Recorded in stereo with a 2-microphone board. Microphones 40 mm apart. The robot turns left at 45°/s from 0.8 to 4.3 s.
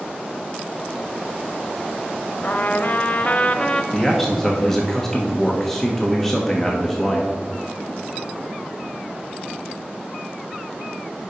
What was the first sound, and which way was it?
A trumpet, 95° left.